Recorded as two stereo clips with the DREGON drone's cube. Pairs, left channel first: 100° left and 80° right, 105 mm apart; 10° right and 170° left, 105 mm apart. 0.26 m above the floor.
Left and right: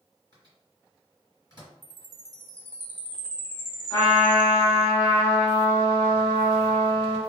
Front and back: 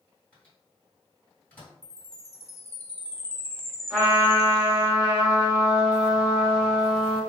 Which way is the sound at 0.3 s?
60° left.